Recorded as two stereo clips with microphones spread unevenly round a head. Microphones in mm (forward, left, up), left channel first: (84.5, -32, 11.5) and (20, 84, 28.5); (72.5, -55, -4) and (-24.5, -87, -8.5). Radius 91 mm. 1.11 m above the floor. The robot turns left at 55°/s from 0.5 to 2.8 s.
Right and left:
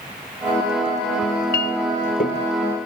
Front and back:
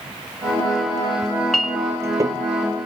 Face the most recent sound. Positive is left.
turn(degrees=-140)